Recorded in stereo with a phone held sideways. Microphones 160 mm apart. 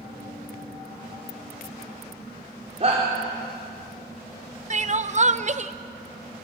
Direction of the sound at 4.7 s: 45° right (ahead or behind).